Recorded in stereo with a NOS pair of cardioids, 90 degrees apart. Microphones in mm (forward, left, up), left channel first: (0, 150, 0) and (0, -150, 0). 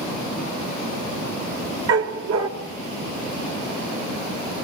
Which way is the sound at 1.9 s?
60° right.